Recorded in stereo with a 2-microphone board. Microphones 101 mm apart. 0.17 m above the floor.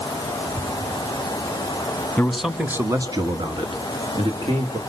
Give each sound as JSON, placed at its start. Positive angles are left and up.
{"t": 2.2, "sound": "a man speaking", "side_deg": 10, "distance_m": 1.3}